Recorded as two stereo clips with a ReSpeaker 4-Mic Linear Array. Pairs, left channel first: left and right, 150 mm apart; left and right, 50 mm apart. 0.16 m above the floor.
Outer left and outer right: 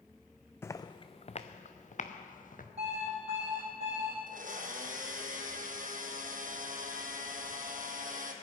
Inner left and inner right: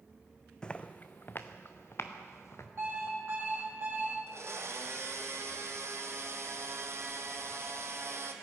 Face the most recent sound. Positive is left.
turn(degrees=-65)  # may be behind; listen again after turning